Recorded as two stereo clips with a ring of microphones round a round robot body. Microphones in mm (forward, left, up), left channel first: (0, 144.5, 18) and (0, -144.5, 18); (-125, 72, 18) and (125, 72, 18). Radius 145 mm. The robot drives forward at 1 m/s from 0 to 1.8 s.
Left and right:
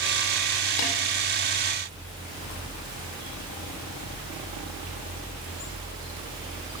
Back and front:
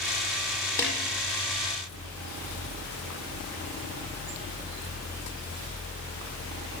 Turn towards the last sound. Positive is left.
turn(degrees=105)